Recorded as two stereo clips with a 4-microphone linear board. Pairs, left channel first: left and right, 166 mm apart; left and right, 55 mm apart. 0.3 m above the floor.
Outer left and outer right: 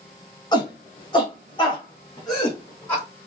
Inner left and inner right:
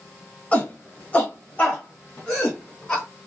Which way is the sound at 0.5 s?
25° left (ahead or behind).